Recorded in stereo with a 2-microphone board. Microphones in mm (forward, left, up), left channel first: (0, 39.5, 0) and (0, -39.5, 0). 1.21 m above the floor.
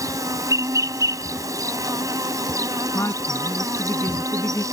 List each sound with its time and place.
0.0 s an insect: 45° right (ahead or behind)
2.9 s a woman speaking: 35° left (ahead or behind)